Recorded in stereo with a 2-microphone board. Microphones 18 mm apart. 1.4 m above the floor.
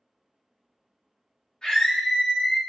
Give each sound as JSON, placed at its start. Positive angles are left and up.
{"t": 1.6, "sound": "a scream", "side_deg": 45, "distance_m": 1.3}